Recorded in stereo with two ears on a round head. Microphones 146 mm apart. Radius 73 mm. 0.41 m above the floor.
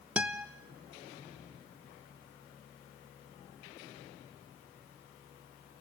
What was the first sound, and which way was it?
A guitar, 10° right (ahead or behind).